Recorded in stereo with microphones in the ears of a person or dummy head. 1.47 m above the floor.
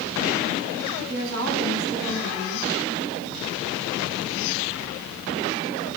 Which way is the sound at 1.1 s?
80° right.